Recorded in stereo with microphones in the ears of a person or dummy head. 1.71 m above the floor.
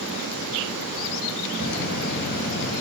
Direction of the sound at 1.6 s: 55° left (ahead or behind).